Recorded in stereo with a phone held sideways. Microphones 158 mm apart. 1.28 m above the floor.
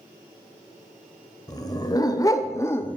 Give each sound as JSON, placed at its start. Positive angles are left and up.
{"t": 1.5, "sound": "a dog barking", "side_deg": 25, "distance_m": 1.7}